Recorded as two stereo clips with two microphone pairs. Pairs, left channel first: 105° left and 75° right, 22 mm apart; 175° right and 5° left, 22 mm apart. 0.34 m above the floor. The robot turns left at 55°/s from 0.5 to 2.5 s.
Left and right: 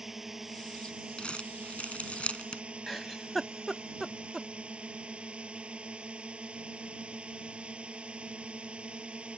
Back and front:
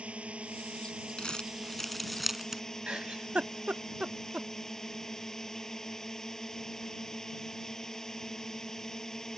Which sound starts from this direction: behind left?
Crumpling, at 1.2 s.